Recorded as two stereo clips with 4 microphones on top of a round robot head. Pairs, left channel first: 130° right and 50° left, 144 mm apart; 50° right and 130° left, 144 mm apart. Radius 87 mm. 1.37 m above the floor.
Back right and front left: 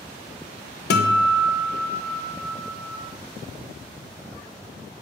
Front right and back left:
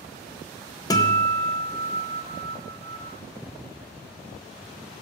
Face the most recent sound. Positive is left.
turn(degrees=-120)